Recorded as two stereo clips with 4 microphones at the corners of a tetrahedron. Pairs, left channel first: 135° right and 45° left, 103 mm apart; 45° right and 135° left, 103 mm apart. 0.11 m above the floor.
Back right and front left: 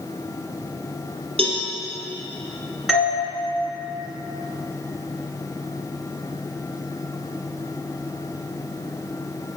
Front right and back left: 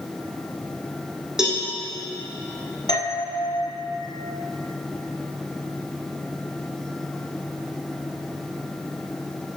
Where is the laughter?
I don't hear laughter.